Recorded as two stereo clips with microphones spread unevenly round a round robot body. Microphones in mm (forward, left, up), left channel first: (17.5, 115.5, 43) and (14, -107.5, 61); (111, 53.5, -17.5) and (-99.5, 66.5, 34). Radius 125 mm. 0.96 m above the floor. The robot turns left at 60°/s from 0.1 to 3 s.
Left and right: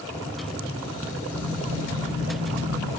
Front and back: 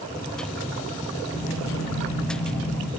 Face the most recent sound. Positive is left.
turn(degrees=-90)